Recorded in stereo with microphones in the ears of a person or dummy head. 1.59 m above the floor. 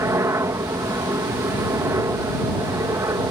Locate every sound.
0.0 s a helicopter: 15° right (ahead or behind)